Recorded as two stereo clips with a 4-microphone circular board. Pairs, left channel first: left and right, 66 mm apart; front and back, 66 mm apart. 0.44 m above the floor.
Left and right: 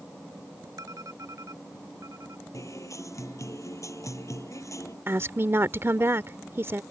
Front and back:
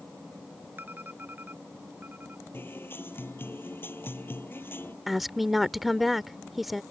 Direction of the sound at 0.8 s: 120° right.